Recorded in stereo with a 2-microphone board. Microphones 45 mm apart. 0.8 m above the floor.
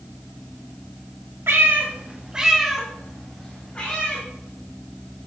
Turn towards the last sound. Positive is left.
turn(degrees=25)  # may be behind; listen again after turning